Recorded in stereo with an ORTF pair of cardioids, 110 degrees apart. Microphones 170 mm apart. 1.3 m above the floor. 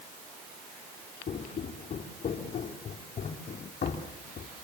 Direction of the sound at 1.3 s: 45° left.